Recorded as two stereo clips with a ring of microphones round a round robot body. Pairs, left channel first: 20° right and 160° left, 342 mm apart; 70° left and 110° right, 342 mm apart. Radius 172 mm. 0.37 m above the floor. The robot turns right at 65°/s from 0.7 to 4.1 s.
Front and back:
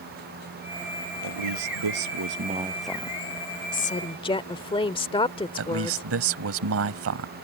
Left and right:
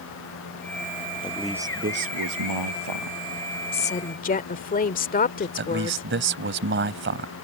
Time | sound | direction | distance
1.2 | a man speaking | 145° left | ?
3.7 | a woman speaking | 10° left | ?
5.6 | a man speaking | 165° right | ?